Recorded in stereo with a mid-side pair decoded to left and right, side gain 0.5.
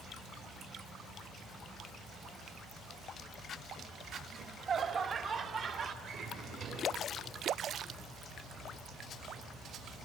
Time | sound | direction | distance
4.3 | laughter | 45° right | 3.5 m
6.0 | a drawer | 60° right | 7 m